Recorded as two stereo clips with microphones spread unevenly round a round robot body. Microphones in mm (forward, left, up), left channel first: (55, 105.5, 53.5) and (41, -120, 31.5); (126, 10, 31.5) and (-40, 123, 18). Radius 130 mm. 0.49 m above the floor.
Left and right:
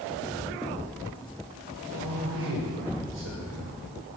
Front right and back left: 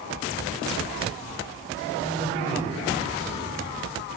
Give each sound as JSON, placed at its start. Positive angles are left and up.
{"t": 2.0, "sound": "a man speaking", "azimuth_deg": -105, "distance_m": 2.0}